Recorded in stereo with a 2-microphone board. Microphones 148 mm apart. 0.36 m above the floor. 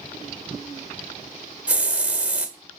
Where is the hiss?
10° right (ahead or behind), 1.2 m.